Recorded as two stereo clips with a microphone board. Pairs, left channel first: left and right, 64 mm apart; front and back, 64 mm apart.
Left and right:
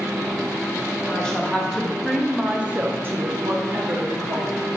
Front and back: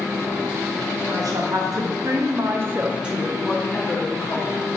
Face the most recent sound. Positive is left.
turn(degrees=-50)